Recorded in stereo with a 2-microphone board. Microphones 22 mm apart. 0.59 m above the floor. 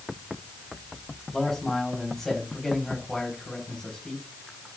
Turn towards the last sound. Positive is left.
turn(degrees=10)  # may be behind; listen again after turning